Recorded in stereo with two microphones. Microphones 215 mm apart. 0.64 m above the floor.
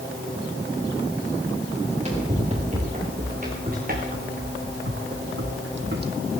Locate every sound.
1.8 s running footsteps: 30° right (ahead or behind), 6 m; by 6.1 s 45° right (ahead or behind), 1.5 m